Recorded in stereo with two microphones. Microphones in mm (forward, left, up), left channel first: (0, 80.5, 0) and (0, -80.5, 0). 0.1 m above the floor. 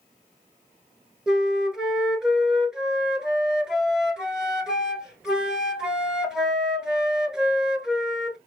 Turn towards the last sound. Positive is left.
turn(degrees=-5)  # may be behind; listen again after turning